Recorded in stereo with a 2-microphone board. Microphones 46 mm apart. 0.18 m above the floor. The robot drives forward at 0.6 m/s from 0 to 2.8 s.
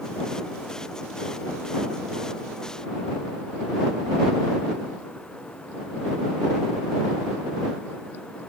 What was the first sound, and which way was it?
Only background noise.